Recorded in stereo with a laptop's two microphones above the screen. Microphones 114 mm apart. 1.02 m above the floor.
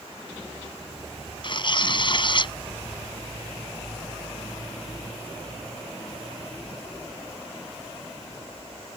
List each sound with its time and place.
1.4 s tearing paper: 45° left (ahead or behind)